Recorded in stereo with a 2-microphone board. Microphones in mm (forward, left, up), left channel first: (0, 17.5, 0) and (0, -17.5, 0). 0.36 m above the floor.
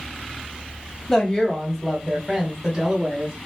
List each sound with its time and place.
1.1 s a woman speaking: 15° left (ahead or behind), 1.5 m; by 3.4 s 25° right (ahead or behind), 2.0 m